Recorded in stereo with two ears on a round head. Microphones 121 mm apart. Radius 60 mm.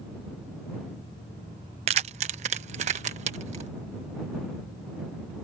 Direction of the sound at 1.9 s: 45° right (ahead or behind).